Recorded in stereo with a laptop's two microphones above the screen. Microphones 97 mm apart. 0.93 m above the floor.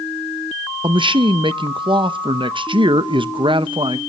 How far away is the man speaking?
About 0.6 m.